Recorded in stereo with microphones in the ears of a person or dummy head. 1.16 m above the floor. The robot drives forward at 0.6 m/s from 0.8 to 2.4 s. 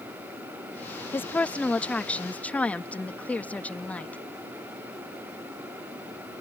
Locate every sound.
1.1 s a woman speaking: 10° left (ahead or behind); by 4.2 s 5° left (ahead or behind)